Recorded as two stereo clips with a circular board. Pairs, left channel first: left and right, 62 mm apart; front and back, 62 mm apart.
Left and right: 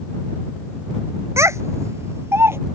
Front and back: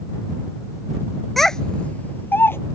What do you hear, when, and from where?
1.4 s a child speaking: 90° right; by 2.6 s 50° right